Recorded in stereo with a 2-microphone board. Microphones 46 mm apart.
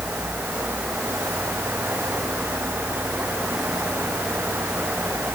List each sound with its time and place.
Only background noise.